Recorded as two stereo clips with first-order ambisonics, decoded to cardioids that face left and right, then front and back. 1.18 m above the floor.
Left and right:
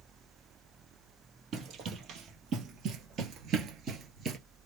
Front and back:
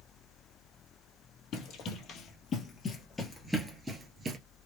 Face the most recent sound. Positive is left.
turn(degrees=-135)